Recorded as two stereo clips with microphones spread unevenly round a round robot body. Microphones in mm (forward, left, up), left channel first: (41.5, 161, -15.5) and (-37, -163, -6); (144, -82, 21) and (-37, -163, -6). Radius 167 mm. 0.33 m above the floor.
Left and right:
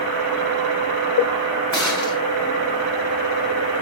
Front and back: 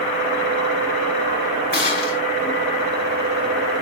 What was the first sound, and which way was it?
A gunshot, 20° right.